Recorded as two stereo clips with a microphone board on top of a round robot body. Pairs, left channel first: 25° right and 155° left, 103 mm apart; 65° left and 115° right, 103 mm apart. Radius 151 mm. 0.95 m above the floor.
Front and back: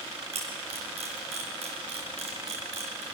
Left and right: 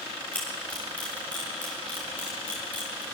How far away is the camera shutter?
About 5.5 m.